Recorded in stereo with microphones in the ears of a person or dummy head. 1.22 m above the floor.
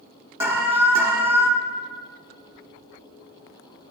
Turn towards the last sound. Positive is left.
turn(degrees=-10)  # may be behind; listen again after turning